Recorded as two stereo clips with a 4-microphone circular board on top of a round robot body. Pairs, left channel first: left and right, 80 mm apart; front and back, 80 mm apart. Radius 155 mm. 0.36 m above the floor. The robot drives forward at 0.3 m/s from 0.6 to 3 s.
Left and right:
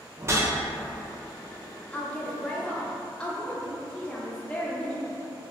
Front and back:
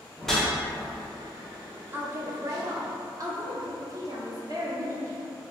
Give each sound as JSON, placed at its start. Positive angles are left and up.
{"t": 0.2, "sound": "a whoosh", "azimuth_deg": -80, "distance_m": 1.1}
{"t": 1.9, "sound": "a woman speaking", "azimuth_deg": 140, "distance_m": 0.8}